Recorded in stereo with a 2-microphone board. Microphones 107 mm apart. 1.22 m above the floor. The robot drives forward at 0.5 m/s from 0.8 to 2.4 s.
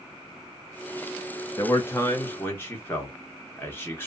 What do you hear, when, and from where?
1.6 s a man speaking: 30° left (ahead or behind), 0.8 m; by 4.1 s 20° left (ahead or behind), 1.1 m